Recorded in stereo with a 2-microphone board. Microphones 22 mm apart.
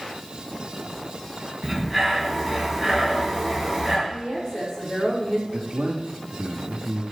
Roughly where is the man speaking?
Right.